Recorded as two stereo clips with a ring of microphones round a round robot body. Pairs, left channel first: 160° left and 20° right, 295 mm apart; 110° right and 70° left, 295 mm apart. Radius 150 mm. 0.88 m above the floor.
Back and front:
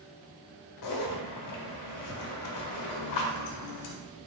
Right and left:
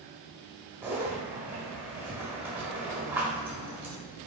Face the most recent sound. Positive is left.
turn(degrees=150)